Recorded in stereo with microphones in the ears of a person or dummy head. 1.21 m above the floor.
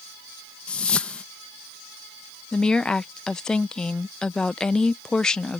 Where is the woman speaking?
5° left (ahead or behind).